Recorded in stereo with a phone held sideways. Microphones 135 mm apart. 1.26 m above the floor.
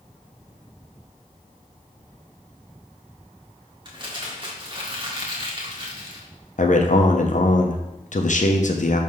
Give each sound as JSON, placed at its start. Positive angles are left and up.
{"t": 3.9, "sound": "crumpling", "side_deg": -35, "distance_m": 1.5}
{"t": 6.6, "sound": "a man speaking", "side_deg": 65, "distance_m": 0.8}